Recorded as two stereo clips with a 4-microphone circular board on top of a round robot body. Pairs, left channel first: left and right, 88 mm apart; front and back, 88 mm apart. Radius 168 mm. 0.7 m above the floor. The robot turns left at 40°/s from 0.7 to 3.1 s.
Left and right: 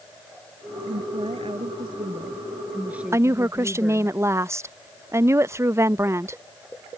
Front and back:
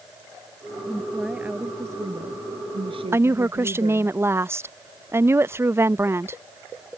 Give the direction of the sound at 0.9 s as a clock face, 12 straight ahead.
3 o'clock.